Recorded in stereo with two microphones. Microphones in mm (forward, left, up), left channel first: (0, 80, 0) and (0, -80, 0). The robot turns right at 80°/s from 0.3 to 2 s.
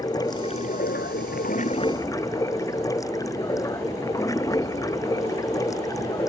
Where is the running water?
25° left; by 6.3 s 160° left.